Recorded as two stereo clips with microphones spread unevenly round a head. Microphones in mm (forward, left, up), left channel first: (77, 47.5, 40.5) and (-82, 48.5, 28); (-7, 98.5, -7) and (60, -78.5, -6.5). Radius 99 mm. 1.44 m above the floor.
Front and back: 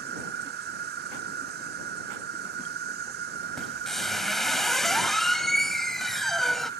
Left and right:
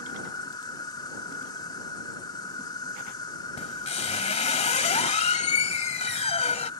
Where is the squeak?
80° left.